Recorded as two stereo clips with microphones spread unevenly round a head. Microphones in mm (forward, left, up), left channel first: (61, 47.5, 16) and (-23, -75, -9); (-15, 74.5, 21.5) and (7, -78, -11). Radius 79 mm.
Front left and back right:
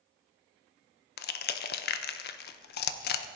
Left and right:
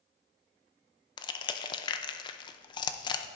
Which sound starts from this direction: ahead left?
Crushing, at 1.2 s.